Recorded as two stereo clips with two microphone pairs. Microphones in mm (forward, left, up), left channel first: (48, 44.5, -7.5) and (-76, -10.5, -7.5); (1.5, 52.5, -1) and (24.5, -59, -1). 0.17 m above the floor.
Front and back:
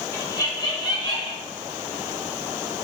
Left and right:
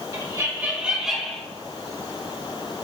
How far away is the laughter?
About 1.6 m.